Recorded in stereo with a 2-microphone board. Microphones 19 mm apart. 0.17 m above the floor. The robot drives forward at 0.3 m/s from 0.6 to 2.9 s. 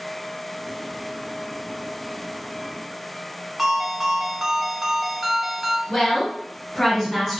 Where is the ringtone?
15° right (ahead or behind), 0.5 m.